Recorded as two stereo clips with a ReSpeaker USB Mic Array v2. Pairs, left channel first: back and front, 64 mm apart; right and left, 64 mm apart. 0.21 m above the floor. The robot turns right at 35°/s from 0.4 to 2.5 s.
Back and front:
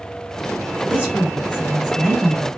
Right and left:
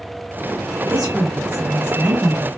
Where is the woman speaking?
15° left, 1.3 m; by 2.5 s 70° left, 1.3 m.